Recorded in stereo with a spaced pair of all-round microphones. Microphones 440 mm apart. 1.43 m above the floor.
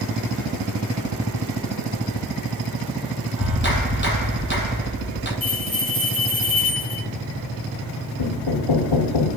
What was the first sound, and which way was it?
A clap, 25° left (ahead or behind).